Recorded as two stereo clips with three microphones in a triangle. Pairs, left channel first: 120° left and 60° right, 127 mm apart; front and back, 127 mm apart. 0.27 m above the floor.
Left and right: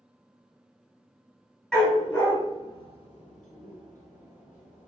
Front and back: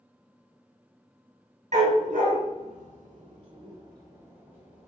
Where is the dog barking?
150° right, 1.1 m; by 4.9 s 100° left, 1.4 m.